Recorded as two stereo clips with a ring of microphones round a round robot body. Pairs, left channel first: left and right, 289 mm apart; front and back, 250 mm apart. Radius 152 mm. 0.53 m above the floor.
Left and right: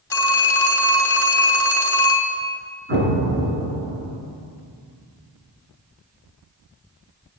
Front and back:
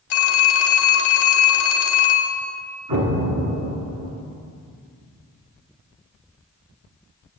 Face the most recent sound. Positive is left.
turn(degrees=-145)